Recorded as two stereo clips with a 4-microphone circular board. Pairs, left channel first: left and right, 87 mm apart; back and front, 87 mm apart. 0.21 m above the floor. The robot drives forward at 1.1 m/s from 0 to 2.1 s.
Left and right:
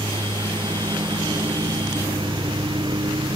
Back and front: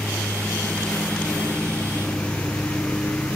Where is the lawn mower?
95° right; by 3.4 s 105° right.